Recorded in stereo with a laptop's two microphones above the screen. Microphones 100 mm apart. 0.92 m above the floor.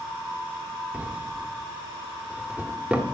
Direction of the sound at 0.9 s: 10° right (ahead or behind).